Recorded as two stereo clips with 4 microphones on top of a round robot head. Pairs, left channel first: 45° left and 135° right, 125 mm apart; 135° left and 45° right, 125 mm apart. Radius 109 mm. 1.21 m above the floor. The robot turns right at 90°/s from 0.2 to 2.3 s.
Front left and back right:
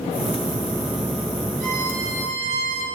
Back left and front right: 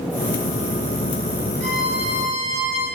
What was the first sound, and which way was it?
A violin, 150° right.